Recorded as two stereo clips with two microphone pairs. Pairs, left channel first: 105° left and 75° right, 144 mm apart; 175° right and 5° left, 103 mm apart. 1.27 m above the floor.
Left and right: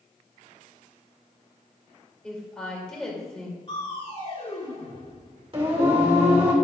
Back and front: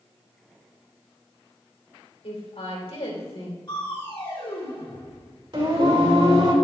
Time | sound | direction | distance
2.2 | a woman speaking | 170° right | 3 m
3.7 | crushing | 145° left | 4 m
5.5 | singing | 25° right | 2.5 m